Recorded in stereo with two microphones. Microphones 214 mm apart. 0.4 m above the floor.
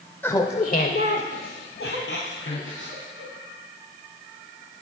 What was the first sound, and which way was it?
Laughter, 10° left (ahead or behind).